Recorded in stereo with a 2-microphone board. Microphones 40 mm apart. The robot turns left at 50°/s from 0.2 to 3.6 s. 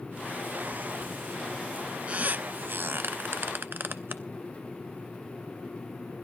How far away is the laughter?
I don't hear laughter.